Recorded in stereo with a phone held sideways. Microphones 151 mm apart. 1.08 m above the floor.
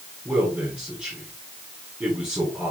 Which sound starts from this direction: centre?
A man speaking, at 0.2 s.